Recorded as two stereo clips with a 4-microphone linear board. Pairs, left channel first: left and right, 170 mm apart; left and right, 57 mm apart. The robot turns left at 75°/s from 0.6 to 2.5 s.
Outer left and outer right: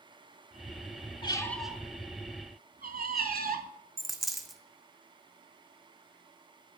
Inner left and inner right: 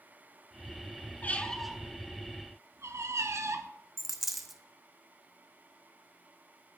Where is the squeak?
30° left (ahead or behind), 0.8 m; by 3.7 s 65° right (ahead or behind), 0.8 m.